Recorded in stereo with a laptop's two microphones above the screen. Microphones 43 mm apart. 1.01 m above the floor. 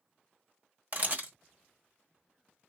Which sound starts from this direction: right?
A camera shutter, at 0.9 s.